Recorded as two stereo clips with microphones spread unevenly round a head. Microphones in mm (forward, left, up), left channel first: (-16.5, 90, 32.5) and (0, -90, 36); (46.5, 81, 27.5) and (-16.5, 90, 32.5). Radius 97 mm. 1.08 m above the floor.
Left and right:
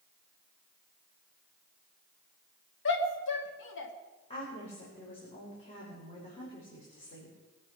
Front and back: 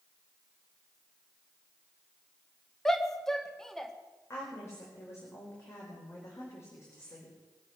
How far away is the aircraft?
No aircraft in this recording.